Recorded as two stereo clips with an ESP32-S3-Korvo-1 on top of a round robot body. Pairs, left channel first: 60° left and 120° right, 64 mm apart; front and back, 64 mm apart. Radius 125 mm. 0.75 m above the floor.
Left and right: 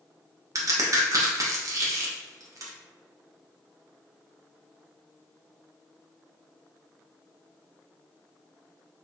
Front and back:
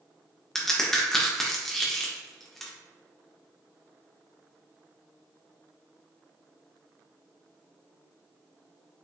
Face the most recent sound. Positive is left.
turn(degrees=-85)